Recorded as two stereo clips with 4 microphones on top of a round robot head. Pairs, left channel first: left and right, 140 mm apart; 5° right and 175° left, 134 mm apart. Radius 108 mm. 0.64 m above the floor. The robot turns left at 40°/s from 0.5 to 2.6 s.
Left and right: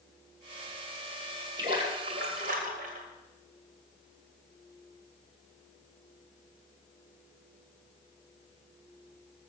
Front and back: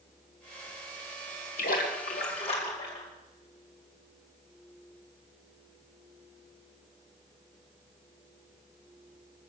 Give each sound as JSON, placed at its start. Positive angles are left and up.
{"t": 1.6, "sound": "a splash", "azimuth_deg": -25, "distance_m": 2.5}